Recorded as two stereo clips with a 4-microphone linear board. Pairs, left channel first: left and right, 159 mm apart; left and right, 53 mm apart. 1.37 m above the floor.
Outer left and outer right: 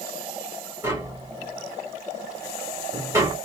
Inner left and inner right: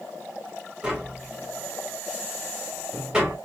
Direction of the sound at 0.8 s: 15° right (ahead or behind).